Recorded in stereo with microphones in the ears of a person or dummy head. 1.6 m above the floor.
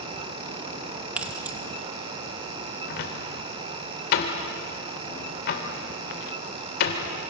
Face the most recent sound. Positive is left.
turn(degrees=65)  # may be behind; listen again after turning